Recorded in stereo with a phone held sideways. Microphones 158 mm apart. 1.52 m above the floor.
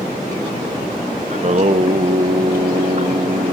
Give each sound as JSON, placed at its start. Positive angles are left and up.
{"t": 1.3, "sound": "singing", "side_deg": -45, "distance_m": 0.9}